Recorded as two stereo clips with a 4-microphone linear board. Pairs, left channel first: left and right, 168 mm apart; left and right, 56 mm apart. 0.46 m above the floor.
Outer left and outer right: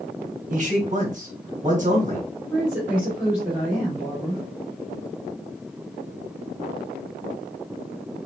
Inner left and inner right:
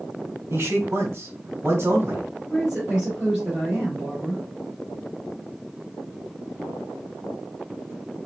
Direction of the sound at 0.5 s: 50° right (ahead or behind).